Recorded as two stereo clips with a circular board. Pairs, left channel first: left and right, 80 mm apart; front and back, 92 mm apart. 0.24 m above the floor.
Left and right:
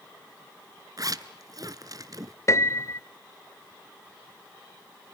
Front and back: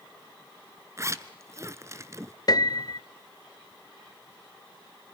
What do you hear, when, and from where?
1.0 s a zipper: 125° right, 0.9 m
2.5 s a piano: 40° left, 0.6 m